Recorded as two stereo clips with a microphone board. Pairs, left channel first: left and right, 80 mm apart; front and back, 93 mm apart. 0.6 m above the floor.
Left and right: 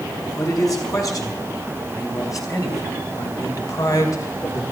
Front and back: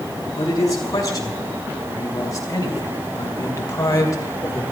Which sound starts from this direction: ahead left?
A man speaking, at 0.4 s.